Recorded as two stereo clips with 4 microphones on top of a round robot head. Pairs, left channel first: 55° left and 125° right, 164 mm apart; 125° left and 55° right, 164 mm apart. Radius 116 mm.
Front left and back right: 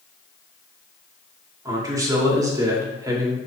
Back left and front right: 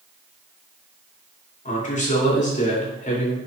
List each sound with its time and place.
1.6 s a man speaking: 165° left, 2.5 m